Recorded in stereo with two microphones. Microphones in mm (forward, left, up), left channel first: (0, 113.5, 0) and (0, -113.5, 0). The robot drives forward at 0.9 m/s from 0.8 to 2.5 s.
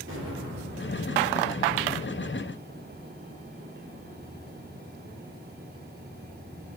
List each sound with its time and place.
0.1 s an explosion: 65° right (ahead or behind), 2 m; by 1.0 s 60° right (ahead or behind), 2.5 m